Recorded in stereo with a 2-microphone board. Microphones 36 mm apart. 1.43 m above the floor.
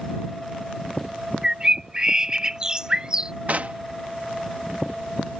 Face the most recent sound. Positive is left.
turn(degrees=-50)  # may be behind; listen again after turning